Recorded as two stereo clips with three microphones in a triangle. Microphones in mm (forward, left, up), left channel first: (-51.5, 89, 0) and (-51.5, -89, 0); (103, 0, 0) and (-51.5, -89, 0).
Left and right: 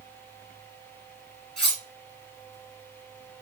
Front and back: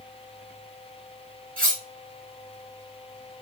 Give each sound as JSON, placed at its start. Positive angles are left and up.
{"t": 1.6, "sound": "cutlery clinking", "azimuth_deg": 175, "distance_m": 1.8}